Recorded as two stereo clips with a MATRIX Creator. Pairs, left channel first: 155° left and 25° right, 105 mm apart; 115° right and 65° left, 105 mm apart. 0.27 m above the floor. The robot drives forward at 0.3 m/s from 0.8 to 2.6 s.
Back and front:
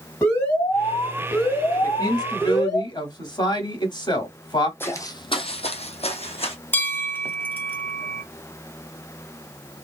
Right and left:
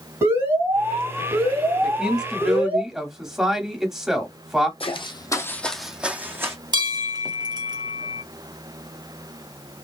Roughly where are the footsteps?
Behind right.